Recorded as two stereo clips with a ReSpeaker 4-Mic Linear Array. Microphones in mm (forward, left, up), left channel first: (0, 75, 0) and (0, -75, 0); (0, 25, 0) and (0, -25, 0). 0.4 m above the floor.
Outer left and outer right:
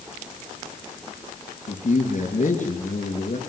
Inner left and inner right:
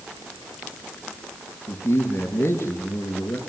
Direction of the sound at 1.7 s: 55° left (ahead or behind).